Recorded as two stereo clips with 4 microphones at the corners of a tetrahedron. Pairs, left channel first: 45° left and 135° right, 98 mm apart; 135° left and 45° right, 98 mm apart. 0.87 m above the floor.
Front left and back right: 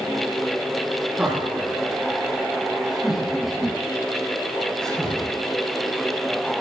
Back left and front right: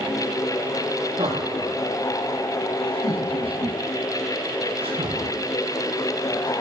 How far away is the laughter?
About 10 m.